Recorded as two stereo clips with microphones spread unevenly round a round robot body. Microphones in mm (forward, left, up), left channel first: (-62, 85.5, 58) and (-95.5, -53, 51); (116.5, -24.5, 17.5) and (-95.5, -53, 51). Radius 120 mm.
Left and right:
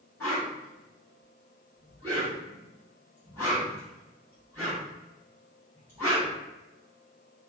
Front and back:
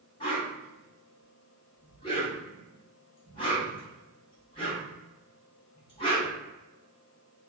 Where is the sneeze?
No sneeze in this recording.